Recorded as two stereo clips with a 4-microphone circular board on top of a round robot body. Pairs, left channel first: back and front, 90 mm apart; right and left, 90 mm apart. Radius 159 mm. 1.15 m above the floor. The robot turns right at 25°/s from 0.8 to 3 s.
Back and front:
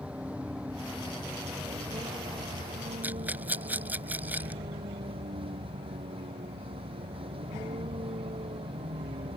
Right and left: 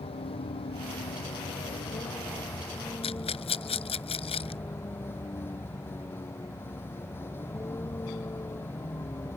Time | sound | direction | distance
0.0 | a vehicle | 80° right | ?
3.0 | a rattle | 75° right | ?